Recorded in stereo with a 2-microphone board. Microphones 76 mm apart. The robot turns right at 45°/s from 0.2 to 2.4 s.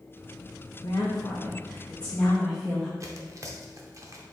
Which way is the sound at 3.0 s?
45° right (ahead or behind).